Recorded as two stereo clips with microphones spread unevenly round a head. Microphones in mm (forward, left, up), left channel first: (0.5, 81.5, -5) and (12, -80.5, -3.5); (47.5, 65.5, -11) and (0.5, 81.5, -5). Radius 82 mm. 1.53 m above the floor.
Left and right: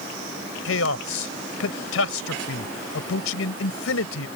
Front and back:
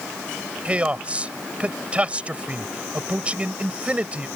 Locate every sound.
0.7 s a man speaking: 100° left